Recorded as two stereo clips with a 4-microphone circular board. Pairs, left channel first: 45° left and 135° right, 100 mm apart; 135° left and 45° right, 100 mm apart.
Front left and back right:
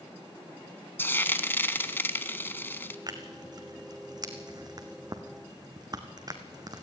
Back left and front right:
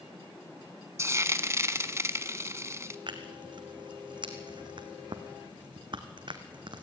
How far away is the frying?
About 0.9 m.